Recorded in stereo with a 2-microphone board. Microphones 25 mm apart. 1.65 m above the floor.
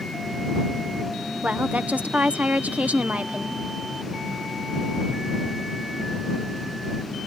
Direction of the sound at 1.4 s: 80° right.